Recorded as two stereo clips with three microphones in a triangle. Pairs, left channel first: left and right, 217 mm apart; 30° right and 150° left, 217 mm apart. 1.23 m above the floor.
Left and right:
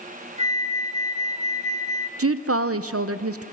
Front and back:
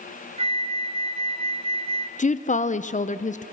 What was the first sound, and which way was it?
A flute, 145° right.